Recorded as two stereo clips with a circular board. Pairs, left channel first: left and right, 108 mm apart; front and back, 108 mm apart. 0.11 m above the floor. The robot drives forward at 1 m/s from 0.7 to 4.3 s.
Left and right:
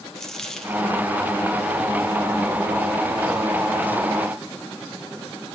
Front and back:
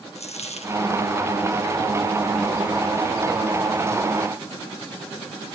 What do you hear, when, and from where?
0.1 s a dropped coin: 5° left, 1.4 m